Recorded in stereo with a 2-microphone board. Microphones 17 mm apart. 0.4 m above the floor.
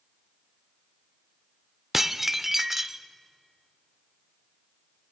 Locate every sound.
1.9 s dishes clattering: 15° right (ahead or behind), 0.6 m